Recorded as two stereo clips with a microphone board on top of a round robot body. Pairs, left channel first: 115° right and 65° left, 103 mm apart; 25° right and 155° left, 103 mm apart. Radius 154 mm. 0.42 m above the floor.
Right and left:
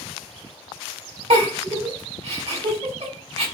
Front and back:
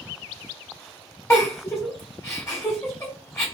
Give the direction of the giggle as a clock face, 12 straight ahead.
11 o'clock.